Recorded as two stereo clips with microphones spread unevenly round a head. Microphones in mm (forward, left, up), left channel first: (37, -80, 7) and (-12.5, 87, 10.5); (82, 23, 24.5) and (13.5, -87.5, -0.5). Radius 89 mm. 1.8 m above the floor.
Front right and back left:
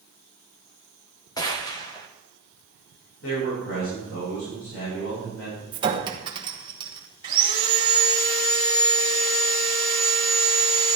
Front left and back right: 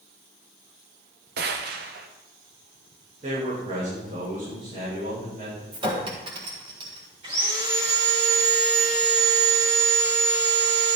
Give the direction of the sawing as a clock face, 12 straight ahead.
6 o'clock.